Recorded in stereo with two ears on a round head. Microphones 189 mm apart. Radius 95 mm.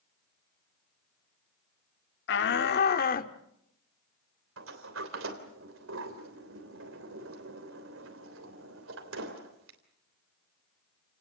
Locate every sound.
2.3 s a shout: 60° left (ahead or behind), 1.2 m; by 3.3 s 45° left (ahead or behind), 1.5 m
4.6 s a sliding door: 70° right (ahead or behind), 3.5 m